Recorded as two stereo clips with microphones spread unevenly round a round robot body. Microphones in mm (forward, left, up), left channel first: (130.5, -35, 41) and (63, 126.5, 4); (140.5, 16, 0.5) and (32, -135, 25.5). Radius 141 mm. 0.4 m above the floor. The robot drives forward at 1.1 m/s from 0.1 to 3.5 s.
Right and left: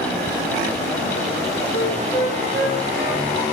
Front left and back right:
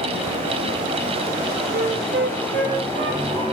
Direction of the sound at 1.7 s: 95° right.